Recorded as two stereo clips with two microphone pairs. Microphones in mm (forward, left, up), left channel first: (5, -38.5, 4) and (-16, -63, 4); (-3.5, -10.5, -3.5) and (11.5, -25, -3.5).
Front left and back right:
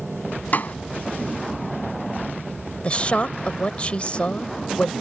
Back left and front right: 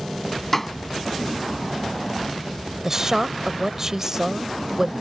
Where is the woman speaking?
15° left.